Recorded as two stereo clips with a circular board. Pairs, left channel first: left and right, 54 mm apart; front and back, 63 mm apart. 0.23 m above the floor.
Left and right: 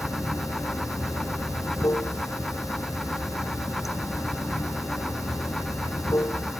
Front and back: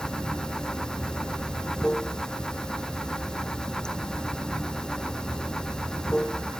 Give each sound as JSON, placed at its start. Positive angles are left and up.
{"t": 0.0, "sound": "running water", "azimuth_deg": 80}